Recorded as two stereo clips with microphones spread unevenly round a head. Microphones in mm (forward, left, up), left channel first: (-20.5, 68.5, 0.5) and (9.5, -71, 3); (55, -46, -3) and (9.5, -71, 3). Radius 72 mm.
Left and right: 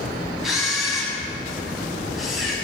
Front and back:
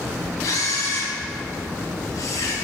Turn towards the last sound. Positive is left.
turn(degrees=10)